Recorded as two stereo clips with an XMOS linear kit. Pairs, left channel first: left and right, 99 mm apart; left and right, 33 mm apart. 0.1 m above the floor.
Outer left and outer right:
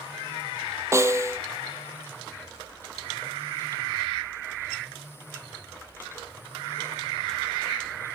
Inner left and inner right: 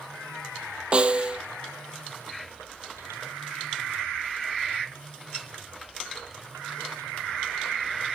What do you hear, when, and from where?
0.9 s a snare drum: 30° right (ahead or behind), 0.8 m